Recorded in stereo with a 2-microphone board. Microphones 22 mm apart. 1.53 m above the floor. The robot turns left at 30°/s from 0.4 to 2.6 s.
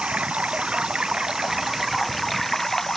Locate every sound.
0.0 s running water: 120° right; by 3.0 s 175° left